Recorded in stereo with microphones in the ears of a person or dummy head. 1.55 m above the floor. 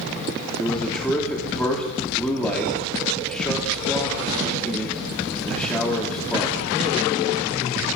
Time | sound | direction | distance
0.6 | a man speaking | 5° left (ahead or behind) | 2.5 m